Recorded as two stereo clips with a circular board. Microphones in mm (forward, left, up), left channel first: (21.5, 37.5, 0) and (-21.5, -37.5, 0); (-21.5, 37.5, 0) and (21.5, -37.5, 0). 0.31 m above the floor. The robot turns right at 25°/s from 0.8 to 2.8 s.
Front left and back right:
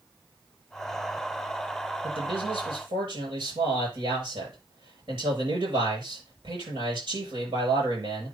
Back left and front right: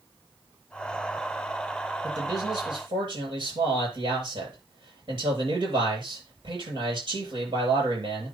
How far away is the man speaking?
About 8.5 m.